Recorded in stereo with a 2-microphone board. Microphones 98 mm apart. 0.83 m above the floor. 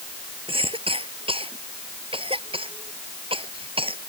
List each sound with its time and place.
0.5 s a cough: 70° right (ahead or behind)